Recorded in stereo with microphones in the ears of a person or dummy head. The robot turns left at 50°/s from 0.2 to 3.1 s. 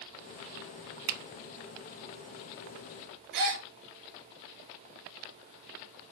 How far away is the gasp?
About 1.4 m.